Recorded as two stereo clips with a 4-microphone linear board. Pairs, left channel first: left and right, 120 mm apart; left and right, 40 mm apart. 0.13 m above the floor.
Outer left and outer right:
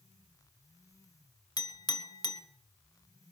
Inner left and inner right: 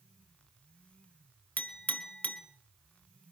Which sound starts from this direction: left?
A clink, at 1.6 s.